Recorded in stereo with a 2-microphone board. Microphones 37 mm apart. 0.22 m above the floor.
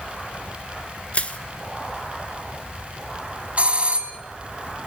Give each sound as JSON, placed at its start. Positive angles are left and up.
{"t": 1.1, "sound": "crushing", "side_deg": 35, "distance_m": 1.3}
{"t": 3.6, "sound": "a doorbell", "side_deg": -35, "distance_m": 2.0}